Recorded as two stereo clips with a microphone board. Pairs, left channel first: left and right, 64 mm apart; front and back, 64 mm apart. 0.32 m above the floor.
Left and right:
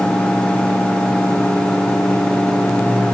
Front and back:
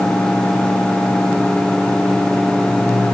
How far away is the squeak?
No squeak in this recording.